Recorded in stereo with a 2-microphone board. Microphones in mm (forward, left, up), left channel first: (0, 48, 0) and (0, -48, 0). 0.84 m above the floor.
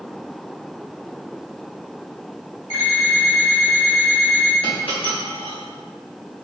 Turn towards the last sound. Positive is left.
turn(degrees=65)  # may be behind; listen again after turning